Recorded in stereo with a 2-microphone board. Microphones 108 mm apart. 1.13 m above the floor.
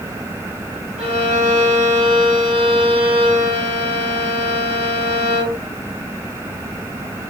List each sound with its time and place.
1.0 s a violin: 65° right (ahead or behind), 4.5 m